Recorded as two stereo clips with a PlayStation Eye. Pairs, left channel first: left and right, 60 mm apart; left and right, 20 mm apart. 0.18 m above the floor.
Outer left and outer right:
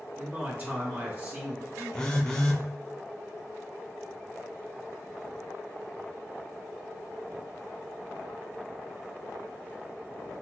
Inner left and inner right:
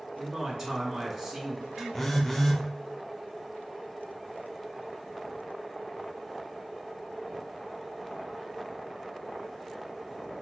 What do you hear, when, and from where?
0.2 s a man speaking: 25° right (ahead or behind), 1.9 m
1.9 s a phone buzzing: 15° left (ahead or behind), 0.7 m